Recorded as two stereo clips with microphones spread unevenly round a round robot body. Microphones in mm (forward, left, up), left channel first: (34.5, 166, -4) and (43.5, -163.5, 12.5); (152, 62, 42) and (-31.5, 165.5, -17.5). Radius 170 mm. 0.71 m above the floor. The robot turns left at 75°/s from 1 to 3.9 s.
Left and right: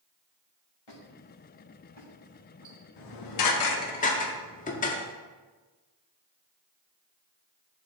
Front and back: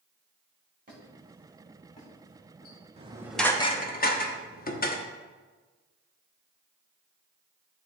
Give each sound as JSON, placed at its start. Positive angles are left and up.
{"t": 0.9, "sound": "a squeak", "azimuth_deg": 100, "distance_m": 2.5}
{"t": 3.0, "sound": "dishes clattering", "azimuth_deg": 95, "distance_m": 1.0}